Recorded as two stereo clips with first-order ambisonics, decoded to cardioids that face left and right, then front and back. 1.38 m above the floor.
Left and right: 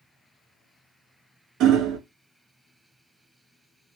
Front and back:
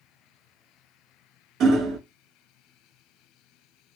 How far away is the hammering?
About 0.7 m.